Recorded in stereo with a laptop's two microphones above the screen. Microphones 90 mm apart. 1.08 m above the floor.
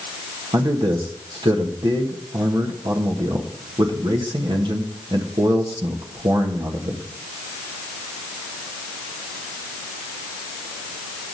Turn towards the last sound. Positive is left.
turn(degrees=-65)  # may be behind; listen again after turning